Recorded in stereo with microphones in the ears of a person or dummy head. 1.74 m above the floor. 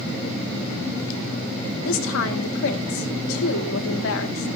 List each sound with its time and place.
1.9 s a woman speaking: 80° left, 2 m